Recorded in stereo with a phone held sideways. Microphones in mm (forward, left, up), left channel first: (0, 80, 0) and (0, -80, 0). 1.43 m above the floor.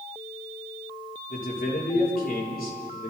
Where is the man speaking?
65° left (ahead or behind), 3.5 m.